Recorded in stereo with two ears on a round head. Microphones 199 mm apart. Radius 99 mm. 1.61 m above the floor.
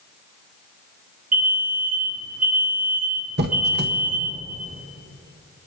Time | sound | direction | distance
1.3 | an alarm | 35° right (ahead or behind) | 1.7 m
3.4 | a squeak | 45° right (ahead or behind) | 1.0 m